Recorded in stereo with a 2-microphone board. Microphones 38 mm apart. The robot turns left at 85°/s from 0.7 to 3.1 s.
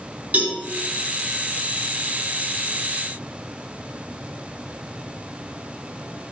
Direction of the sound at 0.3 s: 45° right (ahead or behind).